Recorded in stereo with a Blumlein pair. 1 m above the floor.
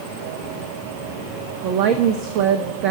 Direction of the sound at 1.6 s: 40° right.